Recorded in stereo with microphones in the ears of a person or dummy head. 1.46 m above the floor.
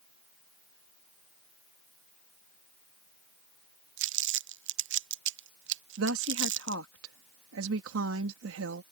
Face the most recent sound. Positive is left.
turn(degrees=-80)